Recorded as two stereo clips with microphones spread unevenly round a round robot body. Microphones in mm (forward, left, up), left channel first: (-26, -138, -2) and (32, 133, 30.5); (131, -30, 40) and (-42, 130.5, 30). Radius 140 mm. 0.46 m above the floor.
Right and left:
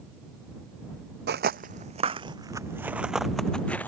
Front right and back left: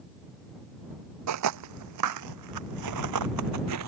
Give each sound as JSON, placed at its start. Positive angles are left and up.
{"t": 1.3, "sound": "footsteps", "azimuth_deg": 130}